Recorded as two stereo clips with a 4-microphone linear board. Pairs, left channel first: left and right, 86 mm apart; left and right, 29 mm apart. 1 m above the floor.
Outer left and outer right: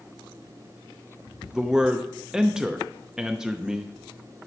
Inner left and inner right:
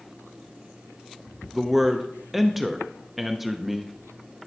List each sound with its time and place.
1.5 s a man speaking: 5° right (ahead or behind), 0.6 m